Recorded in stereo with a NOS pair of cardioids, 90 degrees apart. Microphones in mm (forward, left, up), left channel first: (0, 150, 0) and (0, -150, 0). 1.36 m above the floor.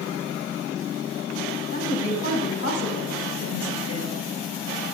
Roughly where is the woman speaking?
Ahead left.